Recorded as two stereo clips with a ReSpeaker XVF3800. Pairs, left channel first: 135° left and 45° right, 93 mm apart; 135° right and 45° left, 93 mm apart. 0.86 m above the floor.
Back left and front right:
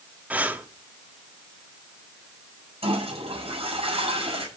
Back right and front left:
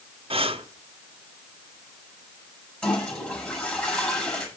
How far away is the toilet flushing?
About 7 m.